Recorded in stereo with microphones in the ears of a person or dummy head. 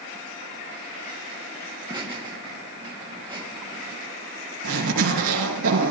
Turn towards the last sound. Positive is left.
turn(degrees=-75)  # may be behind; listen again after turning